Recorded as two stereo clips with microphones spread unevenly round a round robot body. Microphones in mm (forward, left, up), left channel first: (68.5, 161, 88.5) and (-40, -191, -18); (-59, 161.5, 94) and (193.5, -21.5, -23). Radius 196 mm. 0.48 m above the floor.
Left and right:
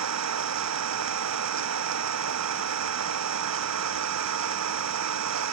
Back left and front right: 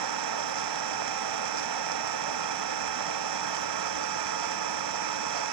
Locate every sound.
0.0 s an engine running: 60° right